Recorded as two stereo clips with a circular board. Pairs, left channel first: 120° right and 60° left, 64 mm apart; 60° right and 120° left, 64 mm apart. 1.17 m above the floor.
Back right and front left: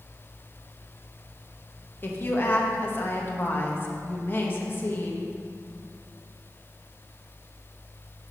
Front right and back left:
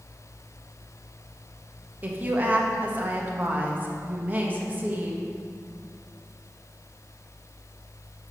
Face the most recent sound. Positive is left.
turn(degrees=-175)